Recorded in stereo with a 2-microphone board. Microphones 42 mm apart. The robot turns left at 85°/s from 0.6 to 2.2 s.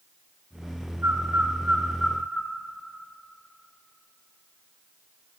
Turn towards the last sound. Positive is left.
turn(degrees=25)  # may be behind; listen again after turning